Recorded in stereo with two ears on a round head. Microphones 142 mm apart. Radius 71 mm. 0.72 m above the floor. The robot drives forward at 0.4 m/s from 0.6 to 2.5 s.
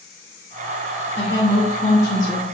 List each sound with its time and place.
1.2 s a woman speaking: 15° left (ahead or behind), 2.0 m; by 2.4 s 20° left (ahead or behind), 1.5 m